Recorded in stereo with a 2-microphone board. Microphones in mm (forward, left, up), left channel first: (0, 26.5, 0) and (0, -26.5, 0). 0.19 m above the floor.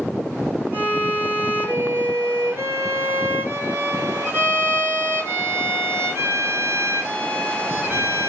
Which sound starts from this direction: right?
A violin, at 0.7 s.